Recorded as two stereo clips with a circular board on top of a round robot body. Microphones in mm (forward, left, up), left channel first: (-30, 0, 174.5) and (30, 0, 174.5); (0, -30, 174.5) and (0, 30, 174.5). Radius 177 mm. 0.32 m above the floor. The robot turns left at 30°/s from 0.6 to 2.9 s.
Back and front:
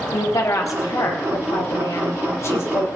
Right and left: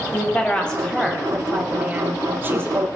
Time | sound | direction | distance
0.1 | a woman speaking | 160° right | 3.5 m